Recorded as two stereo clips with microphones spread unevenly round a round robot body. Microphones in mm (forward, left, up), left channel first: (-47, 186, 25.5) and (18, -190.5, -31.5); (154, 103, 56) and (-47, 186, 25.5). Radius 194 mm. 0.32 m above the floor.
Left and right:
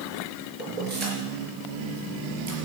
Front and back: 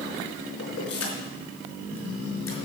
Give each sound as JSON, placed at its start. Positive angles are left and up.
{"t": 0.6, "sound": "keys jangling", "azimuth_deg": -15, "distance_m": 4.0}